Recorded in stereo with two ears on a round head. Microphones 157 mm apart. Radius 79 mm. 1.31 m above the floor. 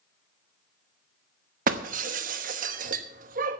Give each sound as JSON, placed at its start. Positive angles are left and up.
{"t": 1.7, "sound": "breaking glass", "side_deg": -45, "distance_m": 1.0}